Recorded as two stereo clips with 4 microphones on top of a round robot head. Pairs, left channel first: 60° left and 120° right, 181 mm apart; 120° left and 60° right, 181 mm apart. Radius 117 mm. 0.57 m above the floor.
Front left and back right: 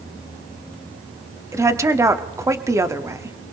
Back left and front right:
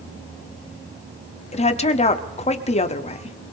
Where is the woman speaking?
165° left, 1.2 m.